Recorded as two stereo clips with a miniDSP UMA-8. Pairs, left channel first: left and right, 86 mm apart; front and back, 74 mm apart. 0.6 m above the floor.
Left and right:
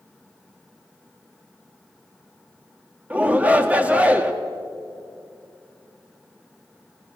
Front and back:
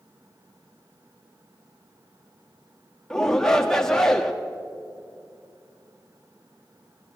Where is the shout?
60° right, 1.1 m.